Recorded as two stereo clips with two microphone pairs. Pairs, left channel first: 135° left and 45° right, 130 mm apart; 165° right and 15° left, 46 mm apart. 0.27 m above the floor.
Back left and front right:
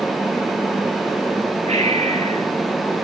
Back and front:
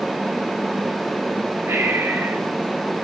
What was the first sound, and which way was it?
Breathing, 10° right.